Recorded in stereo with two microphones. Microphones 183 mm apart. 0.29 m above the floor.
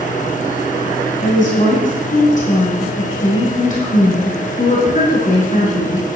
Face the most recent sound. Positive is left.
turn(degrees=45)  # may be behind; listen again after turning